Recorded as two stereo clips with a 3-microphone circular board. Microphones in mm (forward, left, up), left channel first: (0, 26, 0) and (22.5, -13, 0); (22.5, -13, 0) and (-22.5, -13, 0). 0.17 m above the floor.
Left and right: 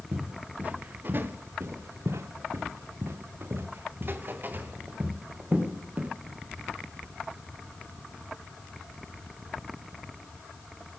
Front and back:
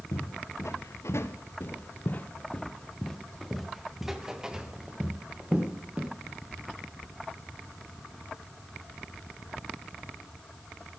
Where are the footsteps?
Straight ahead, 2.5 m; by 6.1 s 115° right, 4 m.